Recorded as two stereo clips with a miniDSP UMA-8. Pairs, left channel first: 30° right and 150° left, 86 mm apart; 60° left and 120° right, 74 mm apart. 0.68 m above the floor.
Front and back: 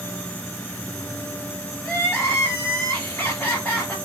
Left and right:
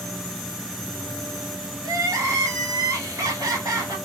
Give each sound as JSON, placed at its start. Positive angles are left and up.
{"t": 1.8, "sound": "crying", "azimuth_deg": -95, "distance_m": 1.4}